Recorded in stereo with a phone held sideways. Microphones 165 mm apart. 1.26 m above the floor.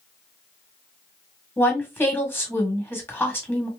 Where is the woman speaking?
10° left (ahead or behind), 1.4 m.